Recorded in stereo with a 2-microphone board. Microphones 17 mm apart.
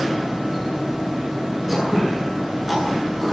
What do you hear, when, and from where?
1.7 s throat clearing: 10° right (ahead or behind), 9 m